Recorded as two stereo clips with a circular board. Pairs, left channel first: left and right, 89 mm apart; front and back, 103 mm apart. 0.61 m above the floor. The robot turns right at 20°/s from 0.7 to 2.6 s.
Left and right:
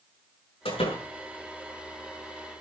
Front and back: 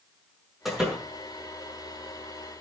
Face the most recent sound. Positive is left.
turn(degrees=130)